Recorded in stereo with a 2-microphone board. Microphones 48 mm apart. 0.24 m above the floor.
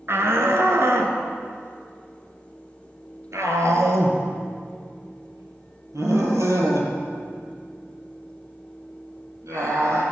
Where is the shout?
55° right (ahead or behind), 3 m; by 10.0 s 75° right (ahead or behind), 8 m.